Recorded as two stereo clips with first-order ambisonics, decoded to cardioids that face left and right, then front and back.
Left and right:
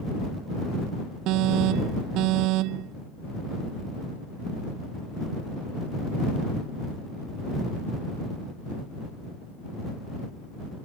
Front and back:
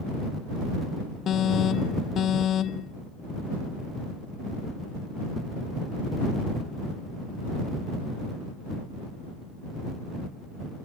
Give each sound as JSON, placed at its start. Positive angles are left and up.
{"t": 1.3, "sound": "an alarm", "azimuth_deg": -60}